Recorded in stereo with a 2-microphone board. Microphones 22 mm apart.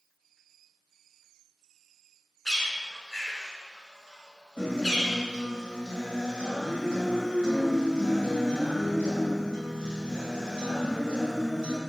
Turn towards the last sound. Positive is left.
turn(degrees=50)  # may be behind; listen again after turning